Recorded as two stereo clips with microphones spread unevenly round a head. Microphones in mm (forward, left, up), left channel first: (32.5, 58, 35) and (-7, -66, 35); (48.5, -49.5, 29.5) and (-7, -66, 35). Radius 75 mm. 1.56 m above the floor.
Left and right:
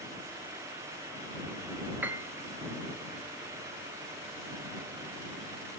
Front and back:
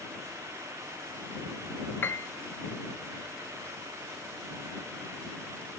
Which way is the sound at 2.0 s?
30° right.